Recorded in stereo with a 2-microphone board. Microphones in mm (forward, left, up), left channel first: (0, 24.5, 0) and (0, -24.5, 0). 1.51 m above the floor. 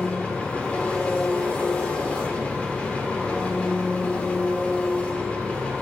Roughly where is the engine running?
Left.